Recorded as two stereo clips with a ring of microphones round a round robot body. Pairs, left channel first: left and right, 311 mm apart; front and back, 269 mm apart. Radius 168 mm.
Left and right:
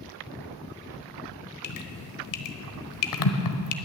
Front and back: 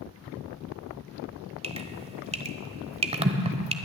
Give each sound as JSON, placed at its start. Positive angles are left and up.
{"t": 1.6, "sound": "dripping", "azimuth_deg": 110, "distance_m": 1.3}